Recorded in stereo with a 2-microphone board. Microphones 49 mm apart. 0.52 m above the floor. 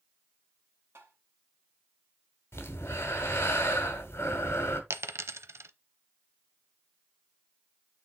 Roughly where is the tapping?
Right.